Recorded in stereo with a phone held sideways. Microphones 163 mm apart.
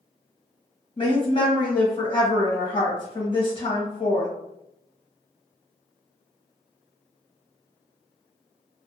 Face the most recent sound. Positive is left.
turn(degrees=35)  # may be behind; listen again after turning